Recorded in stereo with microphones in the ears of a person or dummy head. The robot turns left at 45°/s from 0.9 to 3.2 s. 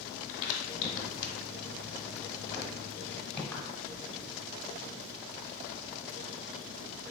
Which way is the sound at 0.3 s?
70° left (ahead or behind).